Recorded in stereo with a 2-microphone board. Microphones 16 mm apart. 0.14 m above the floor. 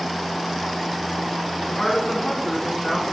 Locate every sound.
1.6 s a woman speaking: 10° left (ahead or behind), 1.7 m; by 3.1 s 15° right (ahead or behind), 1.5 m